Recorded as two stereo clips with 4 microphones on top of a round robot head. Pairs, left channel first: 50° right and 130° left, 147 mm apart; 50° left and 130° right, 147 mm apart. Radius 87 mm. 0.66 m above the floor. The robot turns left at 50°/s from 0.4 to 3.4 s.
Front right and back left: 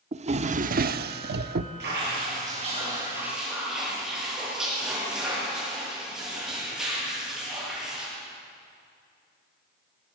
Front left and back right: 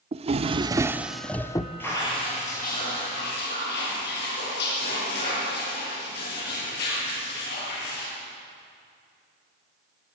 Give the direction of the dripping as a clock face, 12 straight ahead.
8 o'clock.